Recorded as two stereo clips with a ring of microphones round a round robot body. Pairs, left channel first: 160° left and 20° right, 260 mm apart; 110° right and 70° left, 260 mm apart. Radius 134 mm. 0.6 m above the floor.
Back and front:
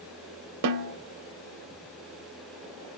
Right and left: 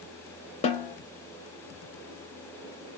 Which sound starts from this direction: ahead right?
A snare drum, at 0.6 s.